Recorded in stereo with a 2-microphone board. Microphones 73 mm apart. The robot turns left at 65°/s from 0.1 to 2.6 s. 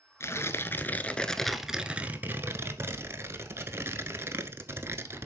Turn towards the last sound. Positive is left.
turn(degrees=-70)